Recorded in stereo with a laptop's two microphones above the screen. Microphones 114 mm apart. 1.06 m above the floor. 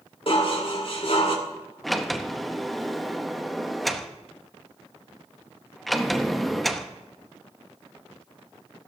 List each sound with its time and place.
0.3 s dishes clattering: 55° left (ahead or behind), 1.7 m
1.8 s a sliding door: centre (ahead or behind), 0.8 m